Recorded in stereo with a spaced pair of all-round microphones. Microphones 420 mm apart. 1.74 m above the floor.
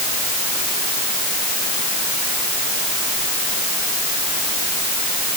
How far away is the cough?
I don't hear a cough.